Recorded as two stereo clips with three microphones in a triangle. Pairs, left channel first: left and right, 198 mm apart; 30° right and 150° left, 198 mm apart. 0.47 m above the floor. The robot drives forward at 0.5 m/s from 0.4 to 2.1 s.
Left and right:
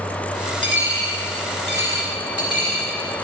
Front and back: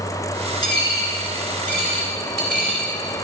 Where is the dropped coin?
100° right, 2 m; by 2.9 s 115° right, 2 m.